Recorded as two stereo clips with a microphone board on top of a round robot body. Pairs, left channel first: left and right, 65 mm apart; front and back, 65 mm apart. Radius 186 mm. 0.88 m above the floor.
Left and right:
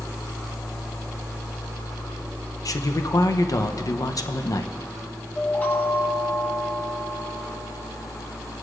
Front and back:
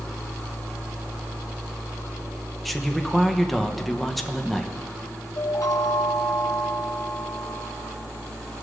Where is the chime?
25° left, 1.4 m.